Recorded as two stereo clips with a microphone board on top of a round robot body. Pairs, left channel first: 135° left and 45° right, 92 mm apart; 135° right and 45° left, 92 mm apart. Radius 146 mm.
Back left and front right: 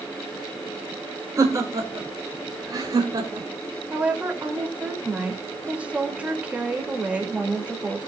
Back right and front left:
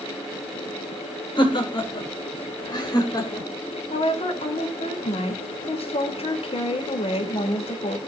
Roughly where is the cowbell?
No cowbell in this recording.